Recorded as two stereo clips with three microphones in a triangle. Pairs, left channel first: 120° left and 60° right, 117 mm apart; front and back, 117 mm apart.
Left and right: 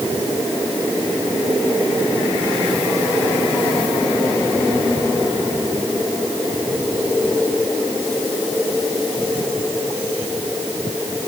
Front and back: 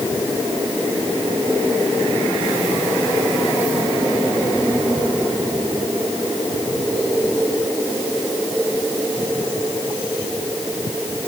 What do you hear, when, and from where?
Only background noise.